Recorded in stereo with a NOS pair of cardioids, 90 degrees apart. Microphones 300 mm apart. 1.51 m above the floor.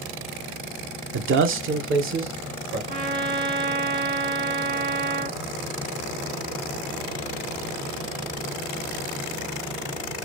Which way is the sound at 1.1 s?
40° right.